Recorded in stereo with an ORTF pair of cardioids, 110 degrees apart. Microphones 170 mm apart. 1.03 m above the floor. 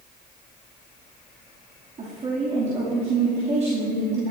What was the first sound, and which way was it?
A woman speaking, 40° right.